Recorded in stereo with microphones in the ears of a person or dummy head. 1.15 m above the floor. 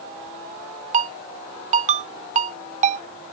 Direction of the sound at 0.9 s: 30° right (ahead or behind).